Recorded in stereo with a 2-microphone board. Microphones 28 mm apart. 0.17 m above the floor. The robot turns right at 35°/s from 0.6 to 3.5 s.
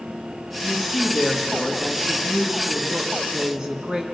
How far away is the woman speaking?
About 2.0 m.